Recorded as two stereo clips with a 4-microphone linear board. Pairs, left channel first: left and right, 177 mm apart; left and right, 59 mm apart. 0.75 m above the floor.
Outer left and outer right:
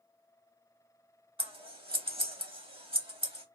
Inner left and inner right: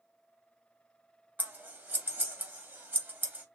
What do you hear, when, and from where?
1.4 s scissors: 30° right (ahead or behind), 0.8 m